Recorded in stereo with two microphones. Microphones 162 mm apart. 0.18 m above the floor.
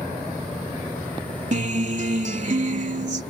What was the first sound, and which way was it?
A guitar, 50° right (ahead or behind).